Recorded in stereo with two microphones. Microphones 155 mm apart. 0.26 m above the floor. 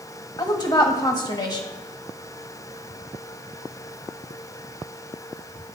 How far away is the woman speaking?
About 1.2 m.